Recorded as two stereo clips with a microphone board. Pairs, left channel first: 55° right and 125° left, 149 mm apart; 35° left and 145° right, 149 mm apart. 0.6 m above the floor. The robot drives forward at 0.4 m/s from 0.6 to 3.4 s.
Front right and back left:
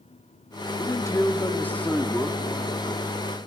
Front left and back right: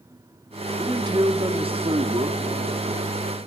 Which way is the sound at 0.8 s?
100° right.